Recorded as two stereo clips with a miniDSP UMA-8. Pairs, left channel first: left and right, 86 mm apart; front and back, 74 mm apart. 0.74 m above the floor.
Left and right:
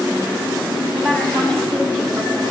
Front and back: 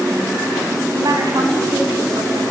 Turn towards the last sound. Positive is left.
turn(degrees=-175)